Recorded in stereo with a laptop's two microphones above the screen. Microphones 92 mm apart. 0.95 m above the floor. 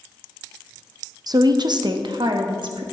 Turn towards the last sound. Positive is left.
turn(degrees=-65)  # may be behind; listen again after turning